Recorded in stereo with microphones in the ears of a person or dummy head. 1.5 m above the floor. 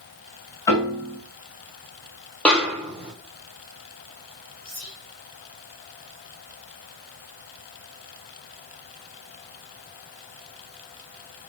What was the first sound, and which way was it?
A piano, 20° left (ahead or behind).